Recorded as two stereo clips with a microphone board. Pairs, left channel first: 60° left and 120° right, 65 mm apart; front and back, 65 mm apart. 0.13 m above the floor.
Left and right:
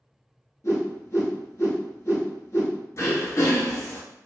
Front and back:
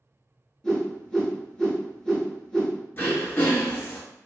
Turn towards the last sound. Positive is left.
turn(degrees=45)